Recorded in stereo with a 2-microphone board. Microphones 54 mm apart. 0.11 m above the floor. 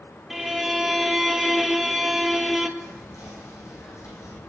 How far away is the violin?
About 0.9 m.